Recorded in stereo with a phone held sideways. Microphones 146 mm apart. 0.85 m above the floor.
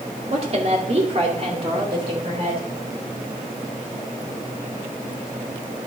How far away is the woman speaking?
About 2 m.